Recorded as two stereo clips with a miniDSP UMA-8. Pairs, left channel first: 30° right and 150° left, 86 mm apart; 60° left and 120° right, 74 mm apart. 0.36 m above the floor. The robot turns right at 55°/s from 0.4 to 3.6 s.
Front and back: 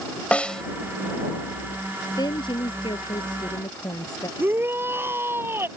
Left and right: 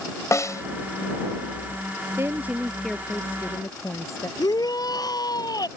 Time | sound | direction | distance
0.3 | a snare drum | 40° left | ?
2.2 | a woman speaking | 65° right | ?
4.4 | a shout | 85° left | ?